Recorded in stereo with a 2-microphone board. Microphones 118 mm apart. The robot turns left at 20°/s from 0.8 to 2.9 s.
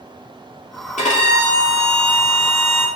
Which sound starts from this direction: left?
A violin, at 1.0 s.